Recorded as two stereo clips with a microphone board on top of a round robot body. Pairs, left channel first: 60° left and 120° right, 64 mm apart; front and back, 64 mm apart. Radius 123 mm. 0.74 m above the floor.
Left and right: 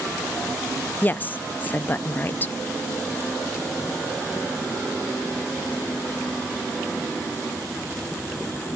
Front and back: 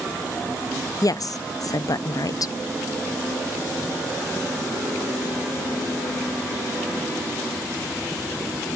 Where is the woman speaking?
5° left, 0.7 m.